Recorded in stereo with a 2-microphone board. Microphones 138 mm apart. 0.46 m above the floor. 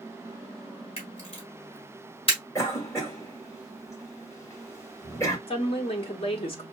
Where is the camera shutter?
45° left (ahead or behind), 2.5 m.